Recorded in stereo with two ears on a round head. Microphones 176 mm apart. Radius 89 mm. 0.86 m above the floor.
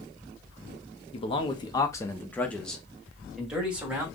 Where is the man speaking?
30° left (ahead or behind), 0.8 m; by 4.0 s 10° right (ahead or behind), 1.6 m.